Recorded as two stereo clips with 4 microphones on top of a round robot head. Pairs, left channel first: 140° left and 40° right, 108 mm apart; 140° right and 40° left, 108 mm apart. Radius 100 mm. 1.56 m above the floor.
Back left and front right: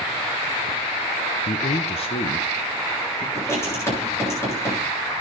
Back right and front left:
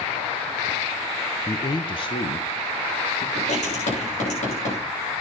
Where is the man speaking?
155° left, 0.6 m; by 3.2 s 175° right, 1.9 m.